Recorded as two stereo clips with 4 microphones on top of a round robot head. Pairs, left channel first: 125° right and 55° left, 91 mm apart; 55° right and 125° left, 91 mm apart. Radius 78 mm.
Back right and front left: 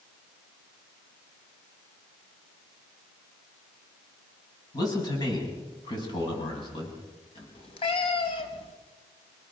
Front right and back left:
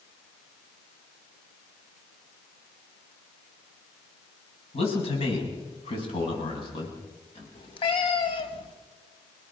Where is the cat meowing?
95° right, 2.5 m.